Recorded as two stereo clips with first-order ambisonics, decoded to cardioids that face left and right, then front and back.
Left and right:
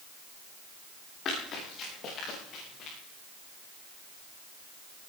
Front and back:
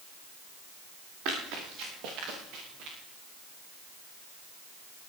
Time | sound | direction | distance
1.2 | running footsteps | 145° left | 8 m